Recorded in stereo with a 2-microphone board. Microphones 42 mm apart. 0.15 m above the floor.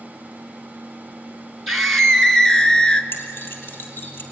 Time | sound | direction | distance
1.7 | a scream | 5° left (ahead or behind) | 2.5 m
3.1 | keys jangling | 60° left (ahead or behind) | 3.5 m